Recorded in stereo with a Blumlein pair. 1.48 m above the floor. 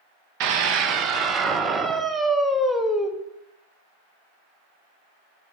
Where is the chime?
No chime in this recording.